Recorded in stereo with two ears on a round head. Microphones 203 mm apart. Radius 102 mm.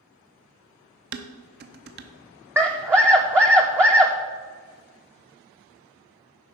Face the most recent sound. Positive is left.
turn(degrees=-10)  # may be behind; listen again after turning